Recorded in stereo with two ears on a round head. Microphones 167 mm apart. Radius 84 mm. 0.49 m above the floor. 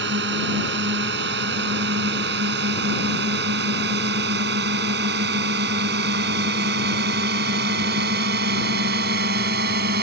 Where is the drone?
60° right (ahead or behind); by 10.0 s 55° right (ahead or behind).